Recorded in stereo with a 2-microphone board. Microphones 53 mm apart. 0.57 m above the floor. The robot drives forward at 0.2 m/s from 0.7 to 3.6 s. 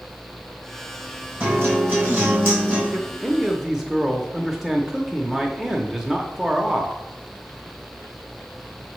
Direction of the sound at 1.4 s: 40° right (ahead or behind).